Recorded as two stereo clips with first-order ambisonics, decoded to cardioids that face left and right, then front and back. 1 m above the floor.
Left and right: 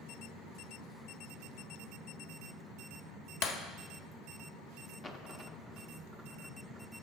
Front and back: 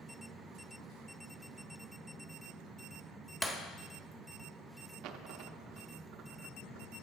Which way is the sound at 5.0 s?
165° left.